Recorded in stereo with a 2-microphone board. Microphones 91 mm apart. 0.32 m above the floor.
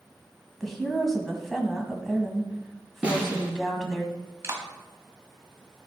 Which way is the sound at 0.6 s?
5° left (ahead or behind).